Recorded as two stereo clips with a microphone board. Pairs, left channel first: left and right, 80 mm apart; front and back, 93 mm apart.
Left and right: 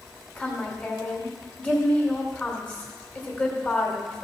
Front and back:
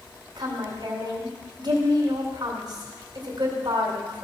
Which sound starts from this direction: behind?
A woman speaking, at 0.4 s.